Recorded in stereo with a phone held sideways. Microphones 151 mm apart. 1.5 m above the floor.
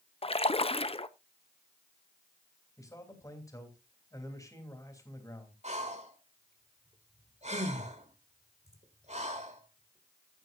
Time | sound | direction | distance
0.2 | a splash | 40° left (ahead or behind) | 0.6 m
2.8 | a man speaking | 20° left (ahead or behind) | 3 m
5.6 | breathing | 50° right (ahead or behind) | 1.8 m